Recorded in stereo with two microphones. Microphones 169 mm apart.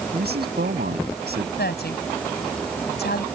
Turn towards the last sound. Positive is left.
turn(degrees=80)